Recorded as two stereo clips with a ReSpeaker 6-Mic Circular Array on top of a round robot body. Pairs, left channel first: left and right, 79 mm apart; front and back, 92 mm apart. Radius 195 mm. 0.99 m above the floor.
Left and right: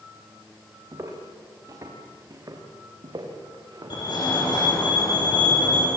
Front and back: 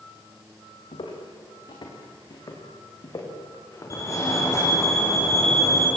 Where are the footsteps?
35° right, 4.5 m; by 4.8 s 65° right, 5 m.